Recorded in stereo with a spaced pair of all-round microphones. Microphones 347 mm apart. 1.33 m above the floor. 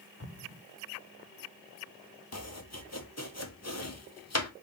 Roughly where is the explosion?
Left.